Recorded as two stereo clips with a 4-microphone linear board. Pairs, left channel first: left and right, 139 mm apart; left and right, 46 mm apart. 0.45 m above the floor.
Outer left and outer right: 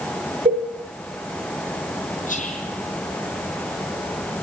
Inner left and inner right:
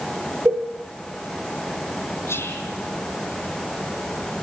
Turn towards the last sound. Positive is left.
turn(degrees=75)  # may be behind; listen again after turning